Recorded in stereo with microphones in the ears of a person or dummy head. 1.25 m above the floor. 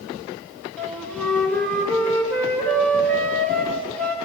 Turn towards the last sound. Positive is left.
turn(degrees=5)  # may be behind; listen again after turning